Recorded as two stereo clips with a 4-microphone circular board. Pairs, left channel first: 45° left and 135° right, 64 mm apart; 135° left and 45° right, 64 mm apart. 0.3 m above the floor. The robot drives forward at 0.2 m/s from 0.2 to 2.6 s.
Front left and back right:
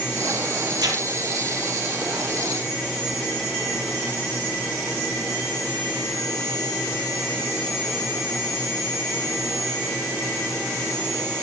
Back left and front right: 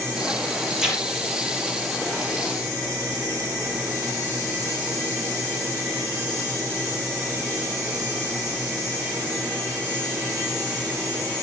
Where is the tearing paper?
130° right, 4 m.